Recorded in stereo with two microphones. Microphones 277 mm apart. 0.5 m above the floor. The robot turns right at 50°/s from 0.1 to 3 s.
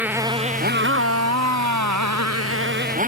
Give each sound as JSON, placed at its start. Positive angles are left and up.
{"t": 0.0, "sound": "a motorcycle", "azimuth_deg": -175}